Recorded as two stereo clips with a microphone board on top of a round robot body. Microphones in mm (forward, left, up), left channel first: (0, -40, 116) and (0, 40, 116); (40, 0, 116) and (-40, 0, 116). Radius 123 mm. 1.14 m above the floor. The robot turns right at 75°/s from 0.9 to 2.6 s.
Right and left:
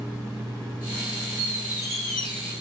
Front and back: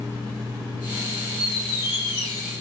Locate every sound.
1.4 s a squeak: 135° left, 1.6 m; by 2.5 s 135° right, 1.6 m